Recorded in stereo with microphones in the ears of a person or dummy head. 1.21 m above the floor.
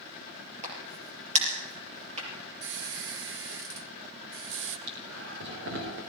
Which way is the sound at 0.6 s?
35° right (ahead or behind).